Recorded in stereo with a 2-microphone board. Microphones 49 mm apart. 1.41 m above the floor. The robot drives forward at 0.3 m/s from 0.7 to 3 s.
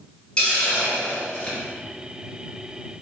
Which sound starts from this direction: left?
A hiss, at 0.4 s.